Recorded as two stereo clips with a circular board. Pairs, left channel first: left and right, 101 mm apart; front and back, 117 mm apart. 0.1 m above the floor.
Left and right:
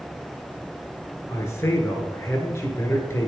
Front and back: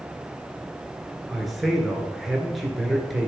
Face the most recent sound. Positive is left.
turn(degrees=90)